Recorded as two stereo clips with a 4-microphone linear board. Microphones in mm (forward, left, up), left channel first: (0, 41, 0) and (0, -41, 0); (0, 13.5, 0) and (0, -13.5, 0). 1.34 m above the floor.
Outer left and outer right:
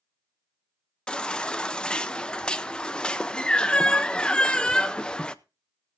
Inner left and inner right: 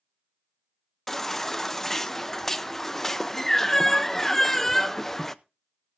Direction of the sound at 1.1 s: 10° left (ahead or behind).